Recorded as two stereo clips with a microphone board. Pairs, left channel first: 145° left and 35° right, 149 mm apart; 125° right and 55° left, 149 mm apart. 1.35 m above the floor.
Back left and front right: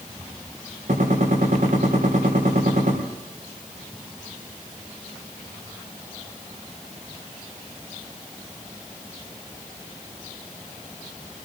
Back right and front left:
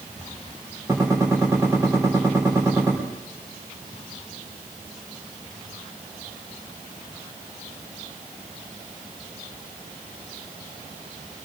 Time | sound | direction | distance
0.9 | a gunshot | 10° right | 4 m